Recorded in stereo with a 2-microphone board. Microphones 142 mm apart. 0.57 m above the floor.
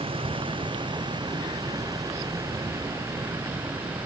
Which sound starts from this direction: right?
A vehicle, at 0.0 s.